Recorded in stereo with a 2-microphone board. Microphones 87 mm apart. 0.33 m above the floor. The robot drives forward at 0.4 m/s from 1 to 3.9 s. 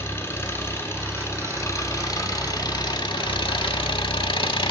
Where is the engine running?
30° left (ahead or behind), 1.3 m; by 4.7 s 75° left (ahead or behind), 0.6 m.